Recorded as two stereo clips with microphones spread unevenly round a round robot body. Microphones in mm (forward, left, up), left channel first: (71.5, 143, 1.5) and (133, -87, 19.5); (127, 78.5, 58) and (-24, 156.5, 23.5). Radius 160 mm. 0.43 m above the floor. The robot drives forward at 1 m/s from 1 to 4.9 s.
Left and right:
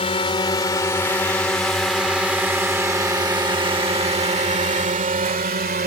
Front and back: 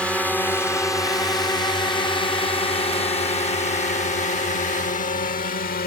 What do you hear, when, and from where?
0.0 s a drone: 70° left; by 5.9 s 40° right